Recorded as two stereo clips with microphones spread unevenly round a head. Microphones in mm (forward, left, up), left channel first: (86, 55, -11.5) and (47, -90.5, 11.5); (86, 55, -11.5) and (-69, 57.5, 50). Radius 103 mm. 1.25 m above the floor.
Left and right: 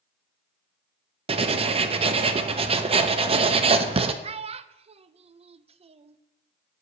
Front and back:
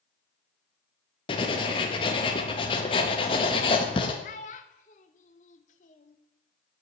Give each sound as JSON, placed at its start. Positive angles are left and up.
{"t": 1.3, "sound": "writing", "azimuth_deg": -80, "distance_m": 0.6}
{"t": 4.2, "sound": "a child speaking", "azimuth_deg": -65, "distance_m": 0.5}